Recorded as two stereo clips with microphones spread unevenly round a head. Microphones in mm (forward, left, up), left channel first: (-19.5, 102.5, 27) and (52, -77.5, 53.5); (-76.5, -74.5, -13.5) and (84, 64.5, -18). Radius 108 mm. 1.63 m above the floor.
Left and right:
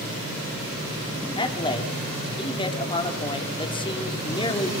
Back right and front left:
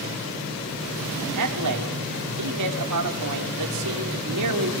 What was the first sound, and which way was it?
A man speaking, 45° left.